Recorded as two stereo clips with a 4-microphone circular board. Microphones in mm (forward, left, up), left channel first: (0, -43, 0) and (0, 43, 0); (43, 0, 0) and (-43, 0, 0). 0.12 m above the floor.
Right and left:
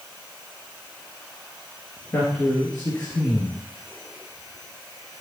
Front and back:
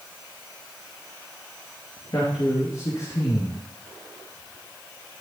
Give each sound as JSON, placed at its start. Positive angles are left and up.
{"t": 2.1, "sound": "a man speaking", "azimuth_deg": -30, "distance_m": 2.5}